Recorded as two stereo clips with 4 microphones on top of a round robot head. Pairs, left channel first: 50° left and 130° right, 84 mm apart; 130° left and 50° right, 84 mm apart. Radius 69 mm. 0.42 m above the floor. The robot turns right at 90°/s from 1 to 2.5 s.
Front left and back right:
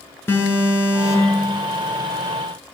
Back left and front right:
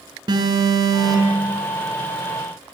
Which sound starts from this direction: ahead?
An alarm, at 0.3 s.